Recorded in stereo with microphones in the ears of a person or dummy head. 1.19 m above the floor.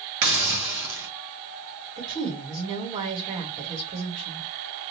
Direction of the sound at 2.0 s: 30° right (ahead or behind).